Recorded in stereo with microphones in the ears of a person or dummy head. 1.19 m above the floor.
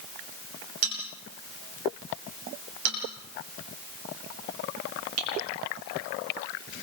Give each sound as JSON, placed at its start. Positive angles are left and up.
{"t": 0.8, "sound": "a bell", "side_deg": -85, "distance_m": 9.0}